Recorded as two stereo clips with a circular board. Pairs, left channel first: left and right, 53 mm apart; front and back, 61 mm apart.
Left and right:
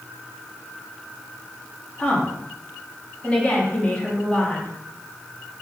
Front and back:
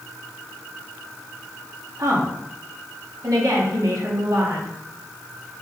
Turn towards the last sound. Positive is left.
turn(degrees=160)